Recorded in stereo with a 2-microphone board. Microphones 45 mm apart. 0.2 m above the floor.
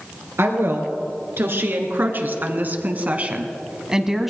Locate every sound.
0.4 s a woman speaking: 65° right (ahead or behind), 3 m; by 4.3 s 5° right (ahead or behind), 1.1 m